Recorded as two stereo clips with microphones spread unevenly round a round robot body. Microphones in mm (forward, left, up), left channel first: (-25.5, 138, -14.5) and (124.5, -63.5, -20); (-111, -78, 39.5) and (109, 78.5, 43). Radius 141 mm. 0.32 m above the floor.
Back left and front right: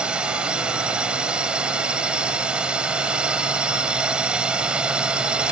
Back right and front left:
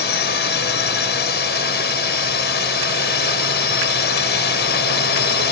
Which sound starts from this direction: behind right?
A drone, at 0.0 s.